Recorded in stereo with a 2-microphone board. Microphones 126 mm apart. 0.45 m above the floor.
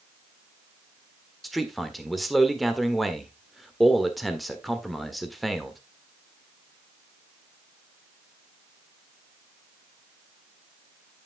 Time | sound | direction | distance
1.4 | a man speaking | centre (ahead or behind) | 1.5 m